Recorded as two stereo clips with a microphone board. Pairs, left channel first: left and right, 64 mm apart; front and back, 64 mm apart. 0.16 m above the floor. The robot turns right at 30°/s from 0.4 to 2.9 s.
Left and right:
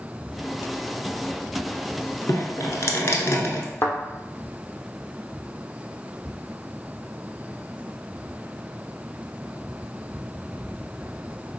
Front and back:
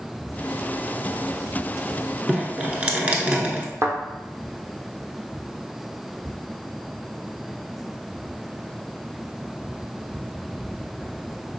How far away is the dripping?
About 0.9 m.